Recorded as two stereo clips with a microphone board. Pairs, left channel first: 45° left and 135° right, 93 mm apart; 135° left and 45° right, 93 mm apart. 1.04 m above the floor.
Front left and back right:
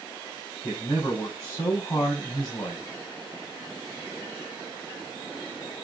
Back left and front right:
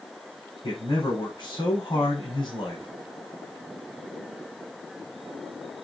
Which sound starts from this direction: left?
A man speaking, at 0.6 s.